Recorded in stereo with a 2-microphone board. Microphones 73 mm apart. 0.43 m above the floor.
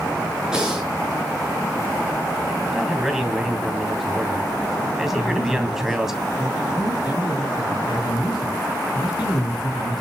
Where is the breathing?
10° right (ahead or behind), 5.5 m.